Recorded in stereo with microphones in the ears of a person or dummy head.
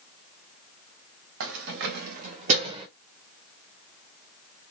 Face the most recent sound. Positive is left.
turn(degrees=-30)  # may be behind; listen again after turning